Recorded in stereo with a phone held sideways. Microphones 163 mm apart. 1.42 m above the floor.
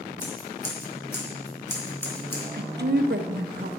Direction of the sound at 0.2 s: 15° left (ahead or behind).